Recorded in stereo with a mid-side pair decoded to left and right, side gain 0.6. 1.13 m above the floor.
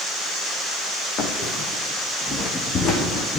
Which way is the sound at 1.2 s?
50° left.